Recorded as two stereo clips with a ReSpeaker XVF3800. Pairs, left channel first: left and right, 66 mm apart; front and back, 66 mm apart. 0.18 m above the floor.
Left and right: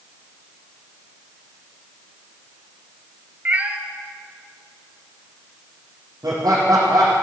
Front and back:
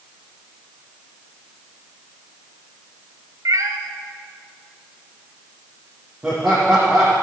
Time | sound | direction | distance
3.5 | a cat meowing | 155° right | 1.1 m
6.2 | laughter | 110° right | 4 m